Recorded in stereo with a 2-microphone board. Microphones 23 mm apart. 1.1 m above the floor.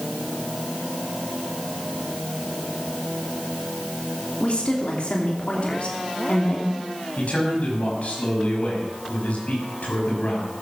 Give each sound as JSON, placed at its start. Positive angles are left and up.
{"t": 4.4, "sound": "a woman speaking", "side_deg": 60, "distance_m": 2.5}
{"t": 7.2, "sound": "a man speaking", "side_deg": 70, "distance_m": 7.0}